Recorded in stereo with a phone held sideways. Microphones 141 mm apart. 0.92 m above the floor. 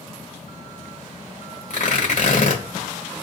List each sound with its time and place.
1.7 s tearing paper: 60° left (ahead or behind), 1.4 m